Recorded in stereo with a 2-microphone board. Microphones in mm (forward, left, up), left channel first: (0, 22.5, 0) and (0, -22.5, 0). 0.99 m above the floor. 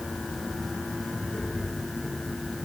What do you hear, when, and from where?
Only background noise.